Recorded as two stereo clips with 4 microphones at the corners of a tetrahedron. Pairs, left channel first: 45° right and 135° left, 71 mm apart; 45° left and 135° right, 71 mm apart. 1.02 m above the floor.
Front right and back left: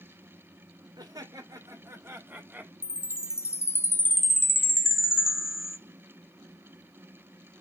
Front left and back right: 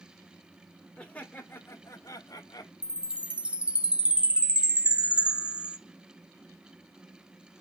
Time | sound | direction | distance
1.0 | laughter | 120° left | 3 m
2.8 | a chime | 70° right | 0.7 m